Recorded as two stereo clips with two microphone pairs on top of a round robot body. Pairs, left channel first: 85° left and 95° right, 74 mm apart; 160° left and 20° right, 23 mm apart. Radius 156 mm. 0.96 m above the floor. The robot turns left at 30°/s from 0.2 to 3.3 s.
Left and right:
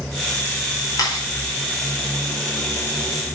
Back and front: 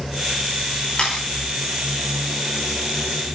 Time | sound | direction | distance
1.0 | a camera shutter | 120° left | 4.5 m